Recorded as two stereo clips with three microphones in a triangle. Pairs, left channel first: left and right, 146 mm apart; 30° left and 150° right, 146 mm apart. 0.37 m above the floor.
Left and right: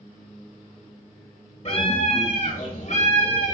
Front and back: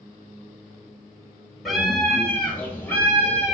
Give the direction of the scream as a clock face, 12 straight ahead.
8 o'clock.